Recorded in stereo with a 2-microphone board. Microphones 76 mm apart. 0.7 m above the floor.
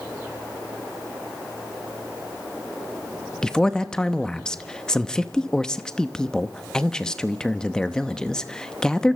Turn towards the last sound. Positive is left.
turn(degrees=10)  # may be behind; listen again after turning